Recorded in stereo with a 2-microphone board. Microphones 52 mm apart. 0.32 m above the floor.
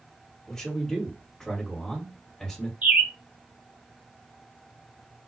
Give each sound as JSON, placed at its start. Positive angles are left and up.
{"t": 0.5, "sound": "a man speaking", "side_deg": 10, "distance_m": 1.8}
{"t": 2.8, "sound": "a bird", "side_deg": -30, "distance_m": 1.8}